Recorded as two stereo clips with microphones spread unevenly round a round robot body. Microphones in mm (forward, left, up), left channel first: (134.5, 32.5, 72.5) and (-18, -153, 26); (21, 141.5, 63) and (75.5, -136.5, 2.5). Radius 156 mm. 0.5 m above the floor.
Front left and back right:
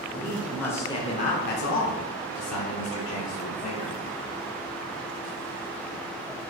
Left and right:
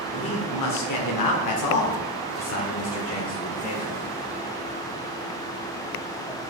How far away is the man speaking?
About 2.0 m.